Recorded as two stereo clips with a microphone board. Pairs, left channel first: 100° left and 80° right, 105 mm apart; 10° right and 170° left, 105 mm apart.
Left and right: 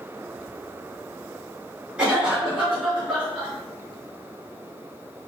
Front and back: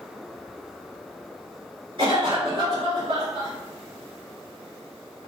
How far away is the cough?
About 1.9 m.